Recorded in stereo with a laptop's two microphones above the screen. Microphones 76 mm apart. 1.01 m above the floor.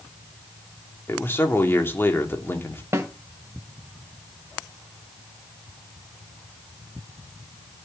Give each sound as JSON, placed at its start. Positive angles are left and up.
{"t": 1.1, "sound": "a man speaking", "side_deg": 30, "distance_m": 2.5}
{"t": 2.9, "sound": "a snare drum", "side_deg": -35, "distance_m": 1.7}